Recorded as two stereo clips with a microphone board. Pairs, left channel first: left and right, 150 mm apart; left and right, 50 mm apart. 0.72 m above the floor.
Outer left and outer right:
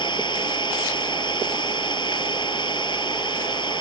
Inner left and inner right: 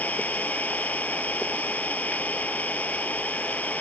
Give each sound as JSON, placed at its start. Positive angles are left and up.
{"t": 0.0, "sound": "an engine running", "side_deg": 30}